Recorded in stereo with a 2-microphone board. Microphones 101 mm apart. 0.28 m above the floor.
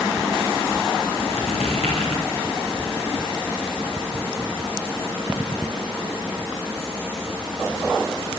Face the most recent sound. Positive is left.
turn(degrees=80)